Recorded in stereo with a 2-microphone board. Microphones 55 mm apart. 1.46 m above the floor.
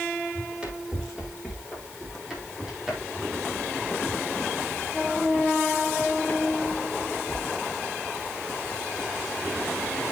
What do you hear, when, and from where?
0.3 s running footsteps: 20° right (ahead or behind), 5 m; by 7.5 s 50° left (ahead or behind), 2.5 m